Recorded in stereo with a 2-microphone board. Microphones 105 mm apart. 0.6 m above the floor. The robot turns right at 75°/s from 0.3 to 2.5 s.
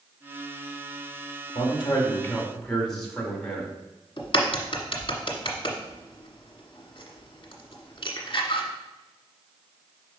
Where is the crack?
50° left (ahead or behind), 1.4 m.